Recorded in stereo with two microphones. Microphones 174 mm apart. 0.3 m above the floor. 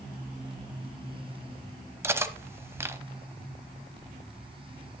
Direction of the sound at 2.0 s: 15° right (ahead or behind).